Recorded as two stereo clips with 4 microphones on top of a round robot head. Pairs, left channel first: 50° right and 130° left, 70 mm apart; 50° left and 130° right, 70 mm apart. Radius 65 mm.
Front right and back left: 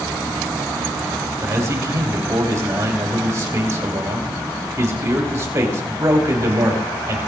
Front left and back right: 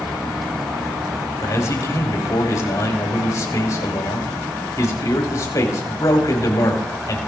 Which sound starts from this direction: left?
A man speaking, at 1.4 s.